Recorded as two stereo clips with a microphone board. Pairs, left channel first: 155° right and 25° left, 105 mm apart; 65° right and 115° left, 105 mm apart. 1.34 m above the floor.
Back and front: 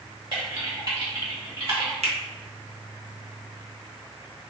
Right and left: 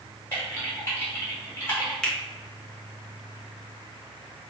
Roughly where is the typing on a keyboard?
Ahead.